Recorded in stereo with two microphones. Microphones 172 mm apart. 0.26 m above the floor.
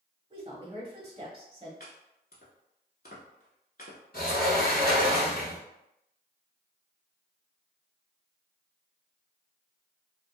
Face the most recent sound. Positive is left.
turn(degrees=70)  # may be behind; listen again after turning